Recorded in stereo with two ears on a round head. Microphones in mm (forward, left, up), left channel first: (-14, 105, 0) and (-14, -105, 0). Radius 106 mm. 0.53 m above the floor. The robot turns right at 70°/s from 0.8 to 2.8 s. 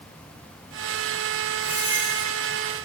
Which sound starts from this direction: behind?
A squeak, at 1.6 s.